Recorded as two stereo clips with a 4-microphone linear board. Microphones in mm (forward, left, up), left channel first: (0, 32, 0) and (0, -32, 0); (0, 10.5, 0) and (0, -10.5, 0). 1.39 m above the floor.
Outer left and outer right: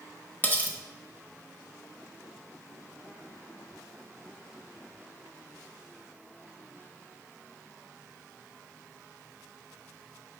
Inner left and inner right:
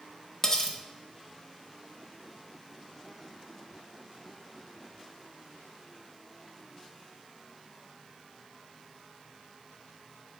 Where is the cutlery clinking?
25° left (ahead or behind), 0.7 m.